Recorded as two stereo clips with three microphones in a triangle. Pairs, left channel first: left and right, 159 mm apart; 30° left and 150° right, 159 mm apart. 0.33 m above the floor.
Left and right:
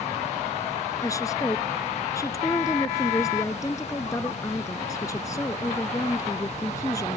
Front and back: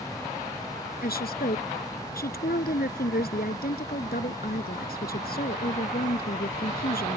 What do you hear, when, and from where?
1.0 s a woman speaking: 20° left